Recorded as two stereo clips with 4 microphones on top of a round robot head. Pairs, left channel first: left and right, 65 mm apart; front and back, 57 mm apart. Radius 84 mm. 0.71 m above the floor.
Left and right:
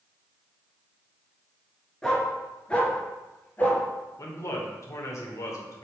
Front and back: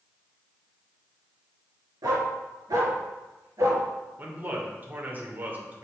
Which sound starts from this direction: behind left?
A man speaking, at 4.2 s.